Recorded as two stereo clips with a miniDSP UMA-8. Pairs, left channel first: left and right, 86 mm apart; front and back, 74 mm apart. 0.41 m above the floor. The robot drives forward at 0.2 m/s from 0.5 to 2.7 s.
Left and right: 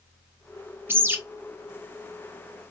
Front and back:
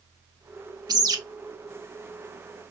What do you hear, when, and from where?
0.9 s a bird: 155° right, 0.9 m